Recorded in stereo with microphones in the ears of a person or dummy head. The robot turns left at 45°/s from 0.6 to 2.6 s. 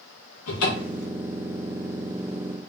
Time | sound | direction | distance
0.5 | a cupboard door | 85° left | 1.1 m